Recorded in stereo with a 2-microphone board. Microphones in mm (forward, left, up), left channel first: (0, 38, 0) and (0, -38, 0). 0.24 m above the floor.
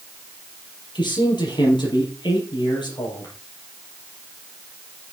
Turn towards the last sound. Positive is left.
turn(degrees=80)